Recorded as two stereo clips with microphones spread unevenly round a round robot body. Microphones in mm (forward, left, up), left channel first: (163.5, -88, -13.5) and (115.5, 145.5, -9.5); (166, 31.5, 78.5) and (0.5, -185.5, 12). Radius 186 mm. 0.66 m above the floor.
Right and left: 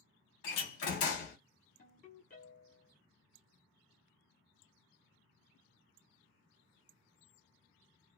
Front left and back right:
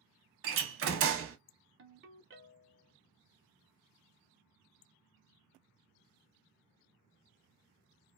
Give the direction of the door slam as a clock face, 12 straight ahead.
3 o'clock.